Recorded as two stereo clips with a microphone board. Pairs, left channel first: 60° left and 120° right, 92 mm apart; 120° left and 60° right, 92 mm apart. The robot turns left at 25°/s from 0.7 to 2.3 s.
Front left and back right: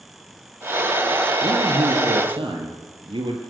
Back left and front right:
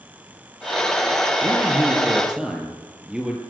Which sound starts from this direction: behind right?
A man speaking, at 1.4 s.